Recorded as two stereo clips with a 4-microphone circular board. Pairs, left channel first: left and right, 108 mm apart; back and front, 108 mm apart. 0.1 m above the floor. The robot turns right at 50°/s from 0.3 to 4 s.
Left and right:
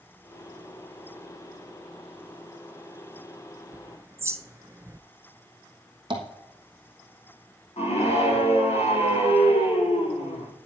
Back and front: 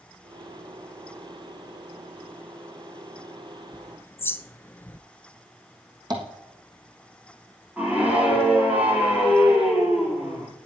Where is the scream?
75° left, 4.5 m.